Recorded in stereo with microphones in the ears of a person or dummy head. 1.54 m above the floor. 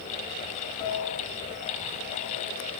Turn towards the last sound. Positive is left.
turn(degrees=30)  # may be behind; listen again after turning